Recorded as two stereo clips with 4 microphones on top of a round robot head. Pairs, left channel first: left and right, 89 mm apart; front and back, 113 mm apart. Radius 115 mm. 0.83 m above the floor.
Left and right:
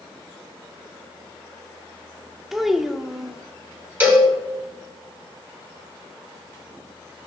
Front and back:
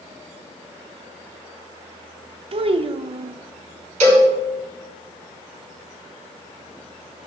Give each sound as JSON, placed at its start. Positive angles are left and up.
{"t": 2.5, "sound": "a child speaking", "azimuth_deg": -175, "distance_m": 0.7}
{"t": 4.0, "sound": "a cowbell", "azimuth_deg": -160, "distance_m": 4.0}